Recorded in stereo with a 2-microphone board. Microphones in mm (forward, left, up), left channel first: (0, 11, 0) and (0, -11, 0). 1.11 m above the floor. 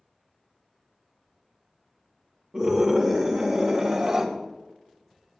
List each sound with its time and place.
2.5 s a scream: 35° right (ahead or behind), 2.5 m